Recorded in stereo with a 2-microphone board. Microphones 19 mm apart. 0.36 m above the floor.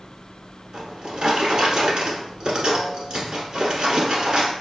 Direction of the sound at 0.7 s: 55° right (ahead or behind).